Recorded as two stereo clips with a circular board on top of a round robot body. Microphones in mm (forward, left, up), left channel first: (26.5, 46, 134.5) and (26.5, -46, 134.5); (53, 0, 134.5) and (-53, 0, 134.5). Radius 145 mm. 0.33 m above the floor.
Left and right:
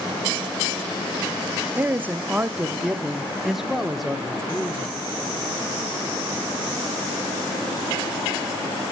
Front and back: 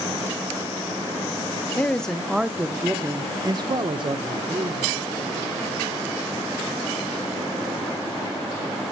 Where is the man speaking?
55° right, 1.0 m; by 5.0 s 175° left, 1.8 m.